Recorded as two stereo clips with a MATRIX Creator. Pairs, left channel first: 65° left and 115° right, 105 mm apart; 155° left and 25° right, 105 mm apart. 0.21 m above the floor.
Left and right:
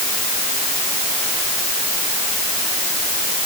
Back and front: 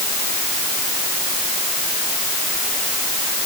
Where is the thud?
I don't hear a thud.